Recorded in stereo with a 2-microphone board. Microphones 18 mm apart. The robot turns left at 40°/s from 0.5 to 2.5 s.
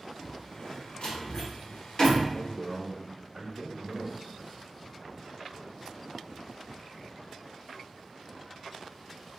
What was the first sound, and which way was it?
A door slam, 60° left (ahead or behind).